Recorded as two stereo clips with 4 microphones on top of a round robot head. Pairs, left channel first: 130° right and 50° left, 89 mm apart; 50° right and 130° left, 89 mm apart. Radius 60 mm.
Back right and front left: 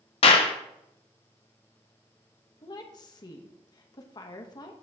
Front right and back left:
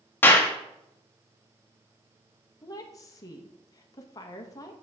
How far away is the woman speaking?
About 1.1 m.